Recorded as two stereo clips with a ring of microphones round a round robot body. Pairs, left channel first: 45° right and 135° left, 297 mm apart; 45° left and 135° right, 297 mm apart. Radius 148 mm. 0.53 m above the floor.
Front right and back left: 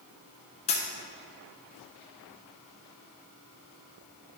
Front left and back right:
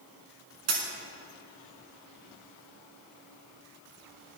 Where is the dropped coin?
115° right, 1.3 m.